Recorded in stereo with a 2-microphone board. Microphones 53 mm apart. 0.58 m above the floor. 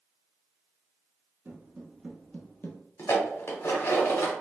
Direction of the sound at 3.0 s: 60° left (ahead or behind).